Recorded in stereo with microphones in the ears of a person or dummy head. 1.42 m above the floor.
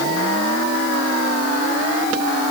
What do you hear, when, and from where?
Only background noise.